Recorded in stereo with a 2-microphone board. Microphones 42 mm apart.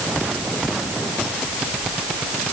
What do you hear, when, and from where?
Only background noise.